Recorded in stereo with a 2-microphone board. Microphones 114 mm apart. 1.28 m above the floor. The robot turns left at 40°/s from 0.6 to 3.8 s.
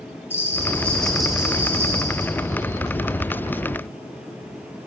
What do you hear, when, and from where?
0.3 s a bell: 25° left, 1.1 m; by 2.3 s 45° right, 1.1 m